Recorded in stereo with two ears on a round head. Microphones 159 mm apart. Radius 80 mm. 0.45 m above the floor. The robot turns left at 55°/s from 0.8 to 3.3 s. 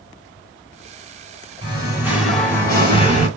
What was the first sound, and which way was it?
Singing, 145° right.